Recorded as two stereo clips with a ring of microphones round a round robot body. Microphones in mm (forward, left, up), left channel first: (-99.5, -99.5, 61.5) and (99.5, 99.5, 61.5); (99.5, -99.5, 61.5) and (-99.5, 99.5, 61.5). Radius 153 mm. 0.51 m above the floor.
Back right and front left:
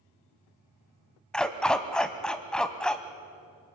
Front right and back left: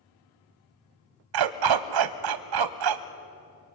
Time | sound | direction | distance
1.3 | a dog barking | 140° left | 0.9 m